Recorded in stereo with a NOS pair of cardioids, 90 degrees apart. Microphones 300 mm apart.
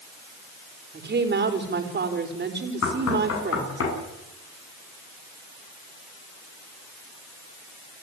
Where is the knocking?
50° left, 9.5 m.